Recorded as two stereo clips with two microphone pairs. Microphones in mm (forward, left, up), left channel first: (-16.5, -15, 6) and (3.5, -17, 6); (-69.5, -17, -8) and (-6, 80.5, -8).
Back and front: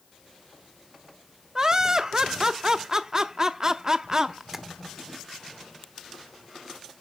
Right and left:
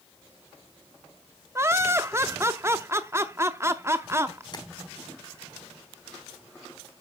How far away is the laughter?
About 0.7 m.